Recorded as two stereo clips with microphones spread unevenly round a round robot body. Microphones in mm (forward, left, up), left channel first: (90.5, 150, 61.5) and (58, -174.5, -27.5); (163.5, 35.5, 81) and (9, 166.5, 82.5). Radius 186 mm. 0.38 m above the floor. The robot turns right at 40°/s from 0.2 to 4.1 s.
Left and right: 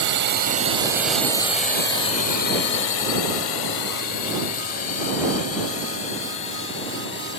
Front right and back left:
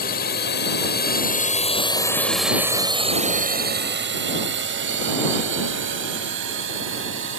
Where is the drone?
70° right; by 7.4 s 150° left.